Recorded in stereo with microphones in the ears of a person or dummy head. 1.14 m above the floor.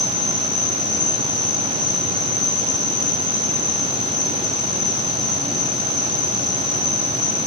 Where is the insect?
5° left (ahead or behind), 4.5 m.